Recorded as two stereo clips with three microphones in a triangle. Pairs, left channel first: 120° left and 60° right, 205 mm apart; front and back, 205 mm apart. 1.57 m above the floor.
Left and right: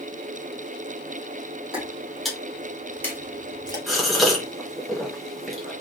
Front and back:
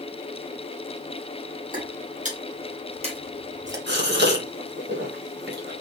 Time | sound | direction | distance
1.7 | footsteps | 145° right | 2.5 m
3.9 | a gasp | 150° right | 1.6 m